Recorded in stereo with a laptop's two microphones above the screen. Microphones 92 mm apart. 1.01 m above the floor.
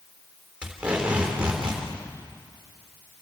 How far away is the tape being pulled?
About 3.5 m.